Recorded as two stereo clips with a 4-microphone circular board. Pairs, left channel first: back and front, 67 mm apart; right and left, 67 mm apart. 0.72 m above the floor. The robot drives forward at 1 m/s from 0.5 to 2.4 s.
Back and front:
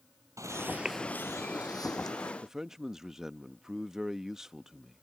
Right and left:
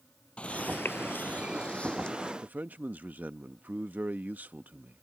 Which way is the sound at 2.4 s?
75° left.